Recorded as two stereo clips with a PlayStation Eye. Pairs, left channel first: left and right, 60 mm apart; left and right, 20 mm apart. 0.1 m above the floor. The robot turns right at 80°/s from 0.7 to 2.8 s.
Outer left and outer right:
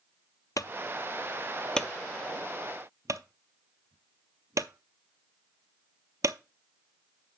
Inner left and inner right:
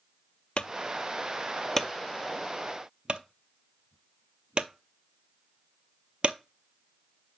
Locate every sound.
0.6 s a clunk: 70° left (ahead or behind), 0.5 m; by 6.4 s 65° right (ahead or behind), 0.5 m